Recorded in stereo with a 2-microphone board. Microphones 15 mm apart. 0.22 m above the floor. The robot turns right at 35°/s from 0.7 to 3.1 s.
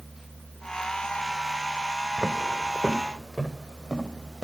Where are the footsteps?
20° left (ahead or behind), 0.7 m; by 4.5 s 60° left (ahead or behind), 3.5 m.